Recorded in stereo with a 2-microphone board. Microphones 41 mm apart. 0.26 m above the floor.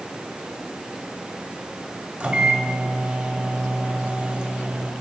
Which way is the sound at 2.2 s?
25° right (ahead or behind).